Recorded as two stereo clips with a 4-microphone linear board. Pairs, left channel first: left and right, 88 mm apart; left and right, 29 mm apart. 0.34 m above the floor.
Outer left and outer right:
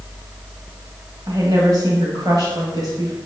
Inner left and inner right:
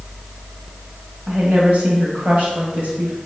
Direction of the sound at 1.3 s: 50° right (ahead or behind).